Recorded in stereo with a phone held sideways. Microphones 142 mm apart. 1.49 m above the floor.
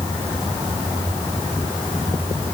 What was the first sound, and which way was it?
Only background noise.